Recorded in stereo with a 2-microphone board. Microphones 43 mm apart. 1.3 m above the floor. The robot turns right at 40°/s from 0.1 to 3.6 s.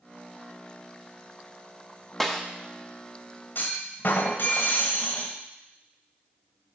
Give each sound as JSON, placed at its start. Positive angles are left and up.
{"t": 2.2, "sound": "a snare drum", "side_deg": 5, "distance_m": 0.8}
{"t": 3.5, "sound": "a clunk", "side_deg": 50, "distance_m": 1.7}